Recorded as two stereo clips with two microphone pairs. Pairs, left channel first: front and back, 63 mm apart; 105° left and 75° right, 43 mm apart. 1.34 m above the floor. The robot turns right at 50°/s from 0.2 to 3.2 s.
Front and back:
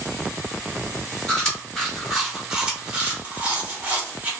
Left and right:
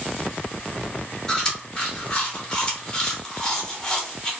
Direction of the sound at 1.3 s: 60° left.